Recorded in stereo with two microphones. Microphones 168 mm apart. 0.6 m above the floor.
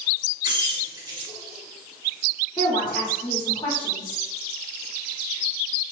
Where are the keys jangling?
25° right (ahead or behind), 1.8 m.